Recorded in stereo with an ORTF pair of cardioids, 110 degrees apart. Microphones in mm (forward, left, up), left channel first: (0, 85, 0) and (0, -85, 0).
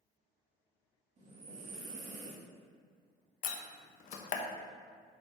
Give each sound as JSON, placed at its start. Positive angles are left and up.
{"t": 1.2, "sound": "breathing", "azimuth_deg": -45, "distance_m": 2.5}
{"t": 3.4, "sound": "a door slam", "azimuth_deg": 50, "distance_m": 1.0}